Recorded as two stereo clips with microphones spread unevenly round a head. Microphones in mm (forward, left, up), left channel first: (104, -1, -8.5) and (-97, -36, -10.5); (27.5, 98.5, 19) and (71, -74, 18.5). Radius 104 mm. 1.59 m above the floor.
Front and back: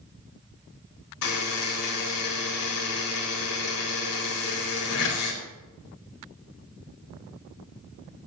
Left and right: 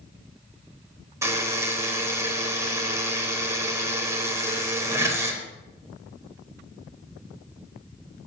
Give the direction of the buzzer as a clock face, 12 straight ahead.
12 o'clock.